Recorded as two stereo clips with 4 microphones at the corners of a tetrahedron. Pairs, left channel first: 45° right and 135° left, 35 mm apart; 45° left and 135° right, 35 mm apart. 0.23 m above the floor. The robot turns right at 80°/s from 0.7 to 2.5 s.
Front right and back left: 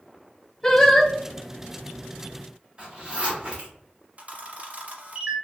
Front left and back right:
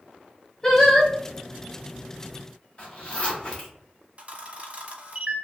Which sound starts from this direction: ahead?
Singing, at 0.6 s.